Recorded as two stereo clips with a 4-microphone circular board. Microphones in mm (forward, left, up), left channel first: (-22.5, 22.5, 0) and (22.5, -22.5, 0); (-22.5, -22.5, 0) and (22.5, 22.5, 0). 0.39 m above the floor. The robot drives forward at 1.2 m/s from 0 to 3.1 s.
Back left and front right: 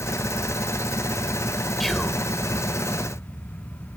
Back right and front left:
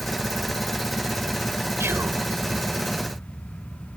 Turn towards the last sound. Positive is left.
turn(degrees=125)